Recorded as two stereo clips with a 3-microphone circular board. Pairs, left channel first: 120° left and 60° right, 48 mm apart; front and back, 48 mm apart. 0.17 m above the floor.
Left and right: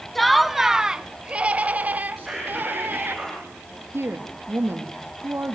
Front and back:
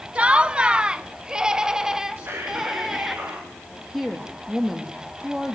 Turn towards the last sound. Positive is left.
turn(degrees=-95)